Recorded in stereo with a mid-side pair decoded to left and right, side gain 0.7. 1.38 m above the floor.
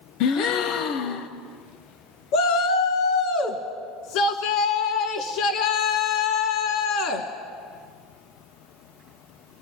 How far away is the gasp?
About 0.8 m.